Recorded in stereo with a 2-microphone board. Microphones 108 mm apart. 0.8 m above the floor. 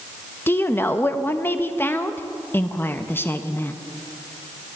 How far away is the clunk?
I don't hear a clunk.